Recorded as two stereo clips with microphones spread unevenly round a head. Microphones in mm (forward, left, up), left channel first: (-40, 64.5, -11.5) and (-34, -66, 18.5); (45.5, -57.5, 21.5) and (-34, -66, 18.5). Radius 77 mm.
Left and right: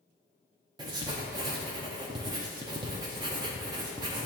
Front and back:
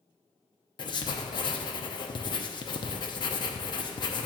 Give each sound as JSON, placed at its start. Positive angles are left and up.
{"t": 0.8, "sound": "writing", "azimuth_deg": -25, "distance_m": 0.7}